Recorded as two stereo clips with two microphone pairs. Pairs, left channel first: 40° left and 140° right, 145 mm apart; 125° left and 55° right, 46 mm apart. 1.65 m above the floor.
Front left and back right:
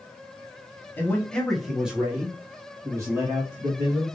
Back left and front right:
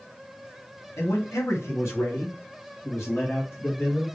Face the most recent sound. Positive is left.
turn(degrees=160)